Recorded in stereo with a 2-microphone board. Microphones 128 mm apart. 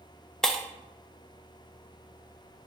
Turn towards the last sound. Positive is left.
turn(degrees=5)  # may be behind; listen again after turning